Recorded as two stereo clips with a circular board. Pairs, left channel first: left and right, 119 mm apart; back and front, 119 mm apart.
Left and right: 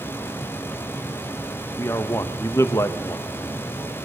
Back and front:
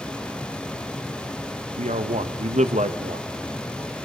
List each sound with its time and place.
1.8 s a man speaking: 20° left, 1.3 m